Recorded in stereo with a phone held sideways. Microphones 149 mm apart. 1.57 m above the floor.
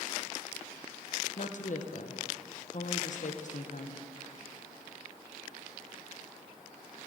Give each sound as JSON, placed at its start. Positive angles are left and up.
{"t": 1.4, "sound": "a woman speaking", "side_deg": 60, "distance_m": 1.0}